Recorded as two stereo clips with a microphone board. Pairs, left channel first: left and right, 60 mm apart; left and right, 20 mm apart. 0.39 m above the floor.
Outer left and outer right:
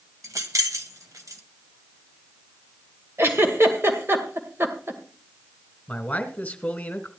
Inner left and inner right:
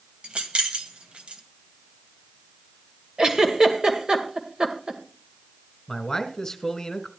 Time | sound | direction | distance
0.2 | keys jangling | 60° right (ahead or behind) | 1.6 m
3.2 | a giggle | 40° right (ahead or behind) | 2 m
5.9 | a man speaking | 25° left (ahead or behind) | 1.8 m